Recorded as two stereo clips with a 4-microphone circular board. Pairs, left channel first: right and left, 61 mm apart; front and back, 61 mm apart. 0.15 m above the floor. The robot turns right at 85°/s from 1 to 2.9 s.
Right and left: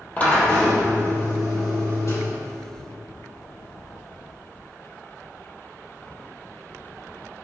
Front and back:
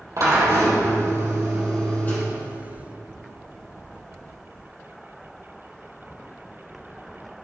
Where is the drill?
155° right, 4 m; by 2.2 s 50° right, 4 m.